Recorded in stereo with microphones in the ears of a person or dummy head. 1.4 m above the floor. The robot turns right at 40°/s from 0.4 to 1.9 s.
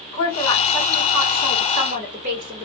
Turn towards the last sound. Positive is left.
turn(degrees=-140)